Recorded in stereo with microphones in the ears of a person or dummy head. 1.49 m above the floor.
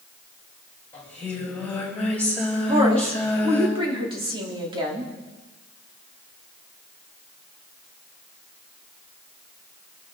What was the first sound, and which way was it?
Singing, 5° left (ahead or behind).